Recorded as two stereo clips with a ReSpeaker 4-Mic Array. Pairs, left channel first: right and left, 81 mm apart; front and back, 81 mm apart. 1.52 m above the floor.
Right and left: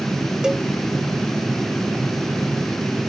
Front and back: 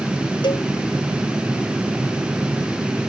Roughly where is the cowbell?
Ahead.